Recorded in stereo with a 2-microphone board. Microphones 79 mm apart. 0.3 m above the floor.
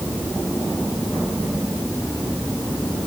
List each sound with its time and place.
Only background noise.